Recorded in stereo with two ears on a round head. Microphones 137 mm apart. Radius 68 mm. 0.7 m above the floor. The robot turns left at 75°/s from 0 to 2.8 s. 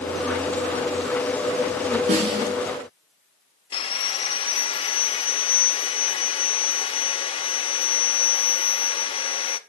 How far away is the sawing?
About 0.9 m.